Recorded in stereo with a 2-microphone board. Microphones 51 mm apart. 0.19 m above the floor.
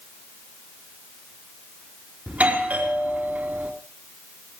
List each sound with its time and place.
2.3 s a doorbell: 30° right (ahead or behind), 3.5 m